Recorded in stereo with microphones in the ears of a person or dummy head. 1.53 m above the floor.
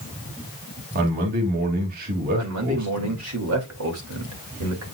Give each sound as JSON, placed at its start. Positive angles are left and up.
{"t": 0.9, "sound": "a man speaking", "side_deg": -45, "distance_m": 2.5}
{"t": 2.4, "sound": "a man speaking", "side_deg": -85, "distance_m": 2.5}